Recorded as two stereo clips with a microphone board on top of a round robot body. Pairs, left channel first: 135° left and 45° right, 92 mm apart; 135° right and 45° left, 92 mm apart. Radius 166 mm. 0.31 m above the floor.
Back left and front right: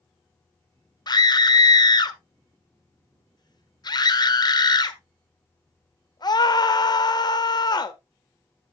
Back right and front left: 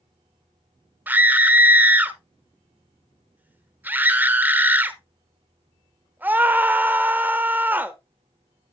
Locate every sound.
1.1 s a scream: 110° left, 1.4 m